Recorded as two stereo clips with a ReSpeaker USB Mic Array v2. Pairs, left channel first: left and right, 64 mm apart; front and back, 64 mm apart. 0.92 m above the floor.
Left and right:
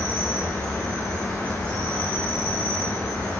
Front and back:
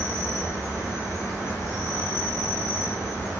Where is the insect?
155° left, 1.1 m.